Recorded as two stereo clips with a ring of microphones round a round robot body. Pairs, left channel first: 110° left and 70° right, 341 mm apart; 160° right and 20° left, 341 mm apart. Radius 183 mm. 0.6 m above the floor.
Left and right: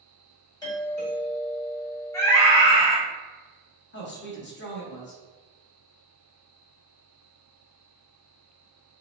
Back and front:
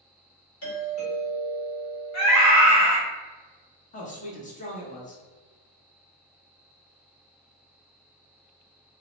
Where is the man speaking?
150° left, 0.9 m.